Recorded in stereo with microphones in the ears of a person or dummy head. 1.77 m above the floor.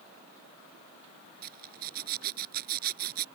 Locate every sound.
1.4 s a zipper: 55° right (ahead or behind)